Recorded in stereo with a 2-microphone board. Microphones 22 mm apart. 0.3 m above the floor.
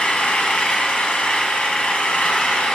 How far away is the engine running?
About 1.8 m.